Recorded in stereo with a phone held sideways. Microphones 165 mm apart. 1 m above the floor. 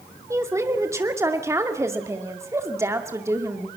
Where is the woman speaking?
15° right (ahead or behind), 2.5 m.